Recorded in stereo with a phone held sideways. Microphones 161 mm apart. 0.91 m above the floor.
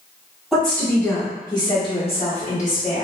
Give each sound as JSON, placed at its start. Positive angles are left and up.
{"t": 0.5, "sound": "a woman speaking", "side_deg": 0, "distance_m": 1.3}